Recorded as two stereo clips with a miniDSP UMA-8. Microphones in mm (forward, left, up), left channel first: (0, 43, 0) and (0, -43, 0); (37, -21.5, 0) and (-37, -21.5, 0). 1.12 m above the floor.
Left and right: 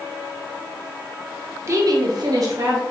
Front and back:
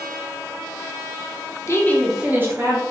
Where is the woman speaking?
40° right, 0.9 m; by 2.8 s 145° right, 1.4 m.